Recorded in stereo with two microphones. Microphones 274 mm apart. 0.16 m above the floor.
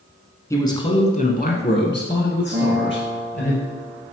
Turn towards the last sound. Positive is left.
turn(degrees=-50)  # may be behind; listen again after turning